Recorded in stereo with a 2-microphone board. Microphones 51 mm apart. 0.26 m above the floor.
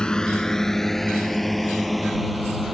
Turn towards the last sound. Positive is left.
turn(degrees=-5)  # may be behind; listen again after turning